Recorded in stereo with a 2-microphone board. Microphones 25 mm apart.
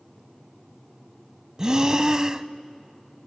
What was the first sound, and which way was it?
Breathing, 30° right (ahead or behind).